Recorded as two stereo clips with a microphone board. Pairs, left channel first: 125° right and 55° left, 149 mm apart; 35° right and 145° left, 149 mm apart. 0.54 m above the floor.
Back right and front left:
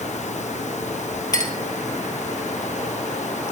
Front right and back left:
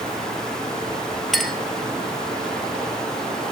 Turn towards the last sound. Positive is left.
turn(degrees=-120)